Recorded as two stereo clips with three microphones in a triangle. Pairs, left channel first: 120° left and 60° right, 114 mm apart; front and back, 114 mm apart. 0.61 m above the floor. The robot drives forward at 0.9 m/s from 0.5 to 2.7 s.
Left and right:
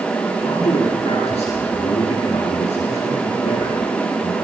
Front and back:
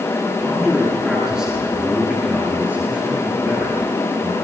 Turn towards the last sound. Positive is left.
turn(degrees=95)